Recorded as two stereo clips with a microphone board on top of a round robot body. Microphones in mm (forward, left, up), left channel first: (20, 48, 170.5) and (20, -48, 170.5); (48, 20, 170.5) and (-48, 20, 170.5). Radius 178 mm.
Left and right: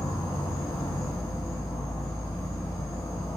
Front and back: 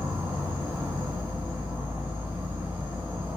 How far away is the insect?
About 2.0 m.